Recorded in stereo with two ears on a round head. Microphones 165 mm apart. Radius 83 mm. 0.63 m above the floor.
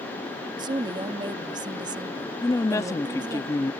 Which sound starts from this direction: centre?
A woman speaking, at 2.4 s.